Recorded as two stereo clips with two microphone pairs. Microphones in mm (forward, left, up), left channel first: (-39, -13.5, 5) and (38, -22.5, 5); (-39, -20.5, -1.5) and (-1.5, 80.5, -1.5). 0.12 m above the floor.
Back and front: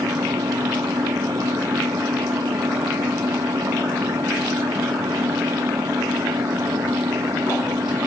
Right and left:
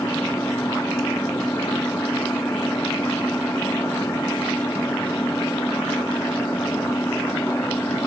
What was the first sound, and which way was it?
An engine running, 45° right.